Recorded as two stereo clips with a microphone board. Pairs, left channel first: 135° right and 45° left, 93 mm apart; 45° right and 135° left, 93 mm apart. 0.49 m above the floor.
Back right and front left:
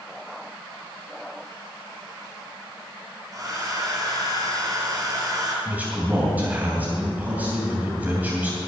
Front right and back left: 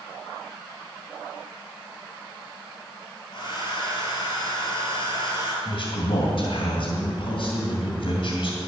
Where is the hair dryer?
10° right, 3.5 m.